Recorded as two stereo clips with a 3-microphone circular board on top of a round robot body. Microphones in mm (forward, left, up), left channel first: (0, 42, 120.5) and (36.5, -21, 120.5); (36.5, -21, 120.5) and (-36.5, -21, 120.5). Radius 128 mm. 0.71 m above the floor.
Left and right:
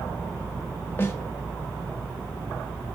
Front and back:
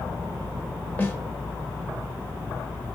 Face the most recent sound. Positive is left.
turn(degrees=65)